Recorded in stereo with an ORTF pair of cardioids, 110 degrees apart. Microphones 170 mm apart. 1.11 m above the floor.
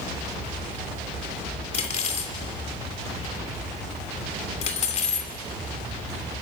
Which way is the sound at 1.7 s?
40° left.